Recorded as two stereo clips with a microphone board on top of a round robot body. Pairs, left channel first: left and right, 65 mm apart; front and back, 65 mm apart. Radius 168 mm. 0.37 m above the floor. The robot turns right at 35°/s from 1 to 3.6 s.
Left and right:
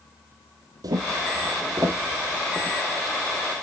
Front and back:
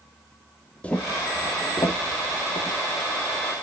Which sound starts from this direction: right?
Footsteps, at 0.8 s.